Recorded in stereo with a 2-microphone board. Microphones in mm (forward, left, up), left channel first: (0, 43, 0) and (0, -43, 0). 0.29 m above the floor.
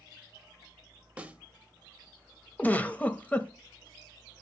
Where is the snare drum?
15° right (ahead or behind), 0.7 m.